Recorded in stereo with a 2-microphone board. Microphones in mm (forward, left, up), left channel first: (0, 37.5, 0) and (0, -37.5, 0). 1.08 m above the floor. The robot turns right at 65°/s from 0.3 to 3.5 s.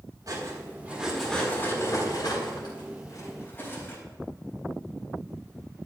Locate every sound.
0.3 s cutlery clinking: 55° right (ahead or behind), 4 m; by 4.0 s 25° left (ahead or behind), 4 m